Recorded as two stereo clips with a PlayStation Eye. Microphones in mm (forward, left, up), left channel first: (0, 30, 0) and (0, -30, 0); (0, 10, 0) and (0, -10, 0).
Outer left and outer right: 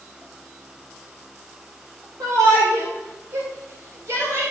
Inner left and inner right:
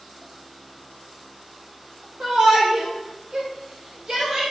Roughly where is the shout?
Right.